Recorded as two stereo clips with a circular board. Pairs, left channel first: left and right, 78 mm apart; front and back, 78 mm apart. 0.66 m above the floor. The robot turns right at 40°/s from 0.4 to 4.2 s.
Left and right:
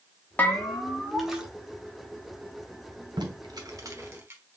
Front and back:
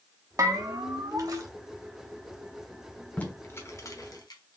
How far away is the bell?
About 1.0 m.